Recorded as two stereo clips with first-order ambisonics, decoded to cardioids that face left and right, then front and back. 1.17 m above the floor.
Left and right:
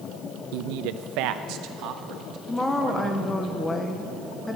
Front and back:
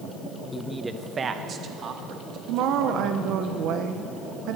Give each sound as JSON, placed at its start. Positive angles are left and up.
{"t": 0.5, "sound": "a man speaking", "azimuth_deg": -85, "distance_m": 0.5}
{"t": 2.5, "sound": "a woman speaking", "azimuth_deg": 170, "distance_m": 0.8}